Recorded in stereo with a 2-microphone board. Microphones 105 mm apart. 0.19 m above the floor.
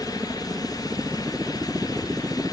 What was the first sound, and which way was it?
A helicopter, 20° right (ahead or behind).